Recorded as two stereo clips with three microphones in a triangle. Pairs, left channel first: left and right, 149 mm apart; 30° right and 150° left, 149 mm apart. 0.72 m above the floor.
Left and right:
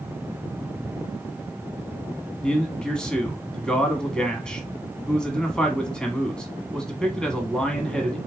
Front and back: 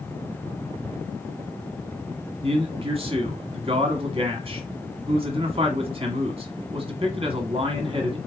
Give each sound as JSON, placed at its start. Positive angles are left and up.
{"t": 2.4, "sound": "a man speaking", "azimuth_deg": 170, "distance_m": 1.2}